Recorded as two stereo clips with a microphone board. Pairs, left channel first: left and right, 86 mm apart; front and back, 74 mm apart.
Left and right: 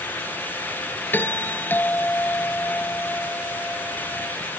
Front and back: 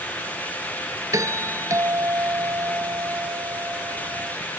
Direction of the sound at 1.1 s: 150° left.